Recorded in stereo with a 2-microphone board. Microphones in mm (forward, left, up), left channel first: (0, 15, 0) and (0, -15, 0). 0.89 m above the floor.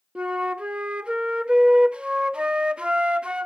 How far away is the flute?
About 0.5 m.